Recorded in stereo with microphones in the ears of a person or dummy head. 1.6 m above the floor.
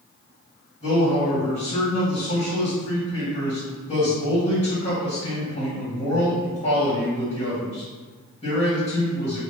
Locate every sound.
0.8 s a man speaking: 40° left (ahead or behind), 1.8 m